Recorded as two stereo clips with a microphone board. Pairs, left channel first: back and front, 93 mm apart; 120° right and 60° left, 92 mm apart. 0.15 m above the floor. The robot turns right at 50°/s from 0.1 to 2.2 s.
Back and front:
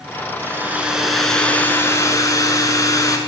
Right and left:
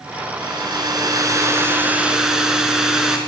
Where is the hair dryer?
50° left, 1.2 m; by 3.2 s 140° left, 1.2 m.